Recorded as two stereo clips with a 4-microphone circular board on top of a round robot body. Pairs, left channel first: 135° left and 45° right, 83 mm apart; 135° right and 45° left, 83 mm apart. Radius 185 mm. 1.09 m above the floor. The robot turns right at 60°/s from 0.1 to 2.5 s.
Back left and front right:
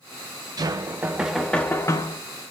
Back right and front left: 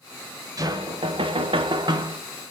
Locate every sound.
0.6 s knocking: 5° right, 0.6 m; by 2.2 s 95° left, 0.6 m